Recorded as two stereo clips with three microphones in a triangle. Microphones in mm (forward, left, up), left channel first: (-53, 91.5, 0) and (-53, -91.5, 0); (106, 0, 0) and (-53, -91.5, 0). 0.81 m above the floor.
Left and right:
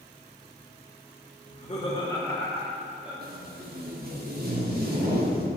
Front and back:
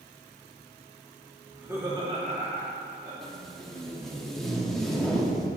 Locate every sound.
1.5 s laughter: 125° left, 1.9 m; by 3.1 s 170° right, 2 m
3.2 s tape being pulled: 60° right, 1.0 m